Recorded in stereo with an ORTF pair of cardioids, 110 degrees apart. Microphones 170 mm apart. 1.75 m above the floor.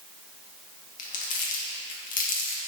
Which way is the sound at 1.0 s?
55° left.